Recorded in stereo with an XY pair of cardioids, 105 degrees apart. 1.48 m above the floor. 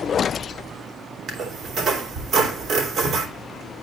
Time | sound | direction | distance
1.3 | a squeak | 60° right | 3 m